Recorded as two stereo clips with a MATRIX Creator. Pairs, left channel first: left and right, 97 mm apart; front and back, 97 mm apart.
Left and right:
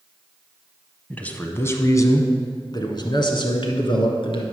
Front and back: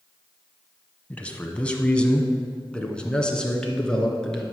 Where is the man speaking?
45° left, 1.0 m; by 4.4 s 80° left, 2 m.